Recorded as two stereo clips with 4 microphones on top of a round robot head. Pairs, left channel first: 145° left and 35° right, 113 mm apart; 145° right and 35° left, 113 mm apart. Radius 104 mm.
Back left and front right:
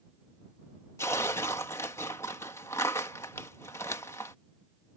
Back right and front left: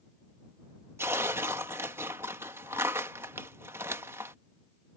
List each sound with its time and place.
1.0 s tearing paper: 90° left